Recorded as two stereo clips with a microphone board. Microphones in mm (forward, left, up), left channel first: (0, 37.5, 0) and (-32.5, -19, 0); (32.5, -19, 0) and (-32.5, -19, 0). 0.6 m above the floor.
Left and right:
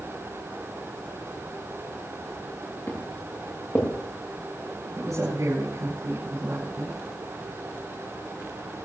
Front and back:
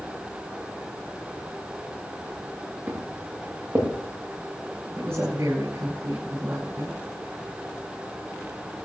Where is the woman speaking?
140° right, 7 m.